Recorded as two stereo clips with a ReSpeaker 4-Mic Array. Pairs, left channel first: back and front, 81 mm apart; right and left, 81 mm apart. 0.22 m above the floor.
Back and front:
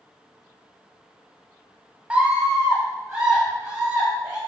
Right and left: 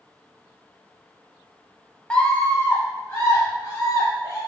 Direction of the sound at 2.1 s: 40° right.